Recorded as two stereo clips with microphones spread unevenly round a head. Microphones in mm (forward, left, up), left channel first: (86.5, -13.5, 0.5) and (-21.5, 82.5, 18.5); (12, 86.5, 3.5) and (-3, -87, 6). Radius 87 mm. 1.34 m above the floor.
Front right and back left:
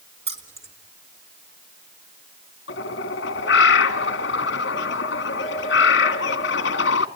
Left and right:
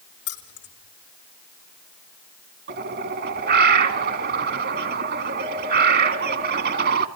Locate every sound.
0.3 s keys jangling: 90° left, 3.5 m
2.7 s a bird: 60° right, 2 m